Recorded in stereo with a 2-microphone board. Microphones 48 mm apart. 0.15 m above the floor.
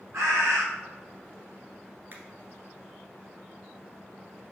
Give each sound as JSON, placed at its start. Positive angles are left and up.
{"t": 0.1, "sound": "a bird", "side_deg": -75, "distance_m": 2.5}
{"t": 2.1, "sound": "a finger snap", "side_deg": -45, "distance_m": 1.4}